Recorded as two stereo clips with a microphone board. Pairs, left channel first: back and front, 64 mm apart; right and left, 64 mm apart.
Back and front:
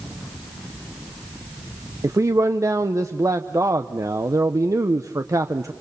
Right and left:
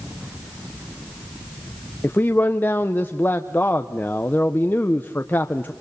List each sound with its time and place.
2.0 s a man speaking: 35° right, 0.8 m